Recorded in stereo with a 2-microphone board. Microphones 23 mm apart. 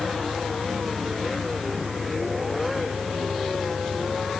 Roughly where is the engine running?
Right.